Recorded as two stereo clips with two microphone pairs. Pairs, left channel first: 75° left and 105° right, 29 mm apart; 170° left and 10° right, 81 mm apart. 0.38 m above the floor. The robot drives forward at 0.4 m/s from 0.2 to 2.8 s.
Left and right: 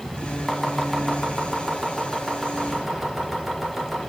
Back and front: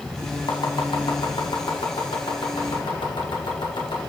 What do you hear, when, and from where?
0.5 s chopping: 155° left, 1.0 m; by 4.0 s 165° left, 1.9 m